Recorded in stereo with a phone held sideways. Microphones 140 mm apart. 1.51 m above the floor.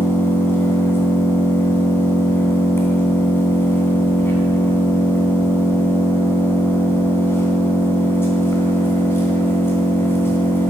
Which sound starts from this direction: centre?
An engine running, at 0.0 s.